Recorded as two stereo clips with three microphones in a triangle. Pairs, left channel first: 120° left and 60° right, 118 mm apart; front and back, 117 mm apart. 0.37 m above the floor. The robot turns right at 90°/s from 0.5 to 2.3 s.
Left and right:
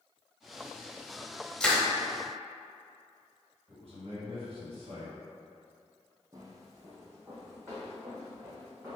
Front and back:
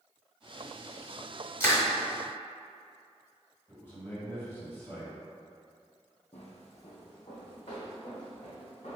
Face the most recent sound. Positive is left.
turn(degrees=5)